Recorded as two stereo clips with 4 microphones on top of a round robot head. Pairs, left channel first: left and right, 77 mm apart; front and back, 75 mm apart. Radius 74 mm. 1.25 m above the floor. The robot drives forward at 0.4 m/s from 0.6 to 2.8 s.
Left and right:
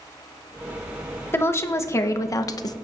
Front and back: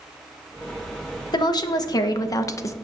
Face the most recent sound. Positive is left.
turn(degrees=50)